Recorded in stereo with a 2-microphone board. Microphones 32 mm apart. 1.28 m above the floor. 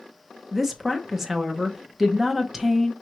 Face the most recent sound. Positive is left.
turn(degrees=-5)  # may be behind; listen again after turning